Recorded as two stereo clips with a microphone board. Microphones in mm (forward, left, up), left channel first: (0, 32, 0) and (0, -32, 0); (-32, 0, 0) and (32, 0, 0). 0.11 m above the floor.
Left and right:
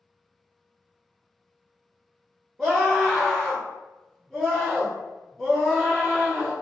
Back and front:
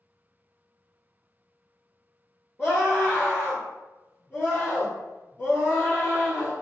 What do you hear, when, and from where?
2.6 s a scream: 170° right, 1.1 m